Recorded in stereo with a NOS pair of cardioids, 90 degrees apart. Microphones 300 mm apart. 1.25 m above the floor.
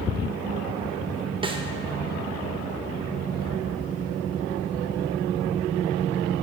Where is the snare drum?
15° right, 0.7 m.